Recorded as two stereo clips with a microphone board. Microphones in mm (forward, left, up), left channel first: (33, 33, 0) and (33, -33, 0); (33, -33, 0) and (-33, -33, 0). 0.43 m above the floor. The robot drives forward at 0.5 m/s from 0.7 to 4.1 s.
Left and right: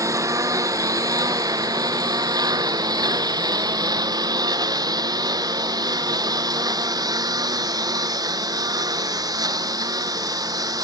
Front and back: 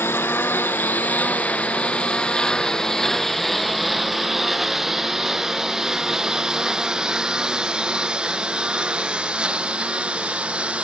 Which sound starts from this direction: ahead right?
A lawn mower, at 0.0 s.